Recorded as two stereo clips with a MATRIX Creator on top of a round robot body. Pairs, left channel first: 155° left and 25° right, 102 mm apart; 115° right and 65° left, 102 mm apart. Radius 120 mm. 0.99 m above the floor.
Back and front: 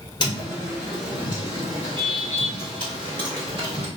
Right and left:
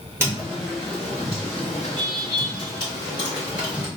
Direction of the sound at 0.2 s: 125° left.